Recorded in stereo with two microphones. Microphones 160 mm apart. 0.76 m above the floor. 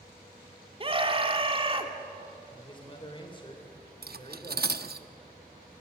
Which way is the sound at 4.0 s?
80° right.